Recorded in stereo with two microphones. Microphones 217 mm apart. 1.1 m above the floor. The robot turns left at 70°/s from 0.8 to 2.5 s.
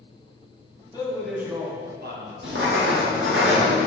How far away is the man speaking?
About 1.4 m.